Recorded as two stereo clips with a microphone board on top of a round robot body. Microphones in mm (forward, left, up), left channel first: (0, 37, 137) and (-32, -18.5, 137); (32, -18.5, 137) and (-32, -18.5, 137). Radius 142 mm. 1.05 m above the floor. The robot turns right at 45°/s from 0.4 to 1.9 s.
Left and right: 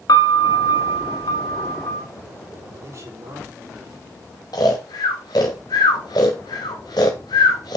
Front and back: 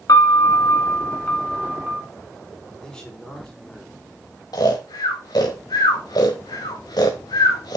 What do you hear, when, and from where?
0.1 s a piano: 30° left, 1.5 m; by 2.0 s 100° left, 1.5 m
2.8 s a man speaking: 80° right, 4 m
4.5 s snoring: 30° left, 1.0 m